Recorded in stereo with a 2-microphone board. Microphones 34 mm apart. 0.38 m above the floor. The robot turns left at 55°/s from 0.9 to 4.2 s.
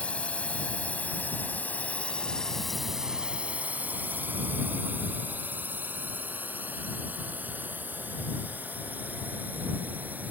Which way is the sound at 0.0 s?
40° left (ahead or behind).